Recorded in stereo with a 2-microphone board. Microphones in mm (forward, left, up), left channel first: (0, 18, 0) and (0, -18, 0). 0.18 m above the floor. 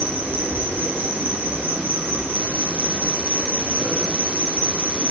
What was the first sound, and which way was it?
An insect, 60° right (ahead or behind).